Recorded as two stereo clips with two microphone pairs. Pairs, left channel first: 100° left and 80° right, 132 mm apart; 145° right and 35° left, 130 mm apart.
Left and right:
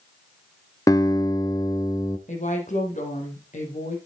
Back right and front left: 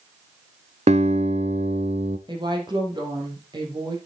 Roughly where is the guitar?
Ahead left.